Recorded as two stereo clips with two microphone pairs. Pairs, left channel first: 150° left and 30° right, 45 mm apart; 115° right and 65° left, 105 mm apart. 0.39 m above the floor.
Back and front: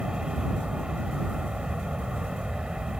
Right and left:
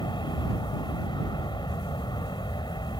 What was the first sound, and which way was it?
An aircraft, 95° right.